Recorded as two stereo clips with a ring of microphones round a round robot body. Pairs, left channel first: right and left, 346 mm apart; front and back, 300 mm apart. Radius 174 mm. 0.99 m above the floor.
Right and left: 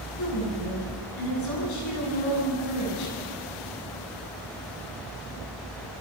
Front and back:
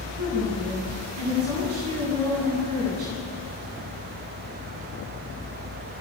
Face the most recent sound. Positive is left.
turn(degrees=-130)